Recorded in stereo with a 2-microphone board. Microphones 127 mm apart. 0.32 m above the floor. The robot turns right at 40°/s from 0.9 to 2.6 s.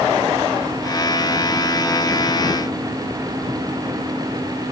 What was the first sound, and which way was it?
Only background noise.